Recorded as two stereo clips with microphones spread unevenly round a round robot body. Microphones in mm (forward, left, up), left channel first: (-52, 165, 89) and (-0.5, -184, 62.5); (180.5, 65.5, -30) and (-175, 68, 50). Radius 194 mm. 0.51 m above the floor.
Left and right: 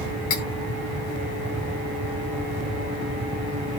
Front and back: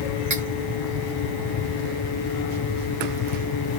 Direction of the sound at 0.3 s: 130° left.